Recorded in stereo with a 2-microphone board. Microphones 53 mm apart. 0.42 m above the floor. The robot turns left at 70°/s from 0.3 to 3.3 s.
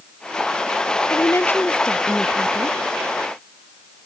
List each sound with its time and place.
1.1 s a woman speaking: 70° left; by 2.8 s 50° right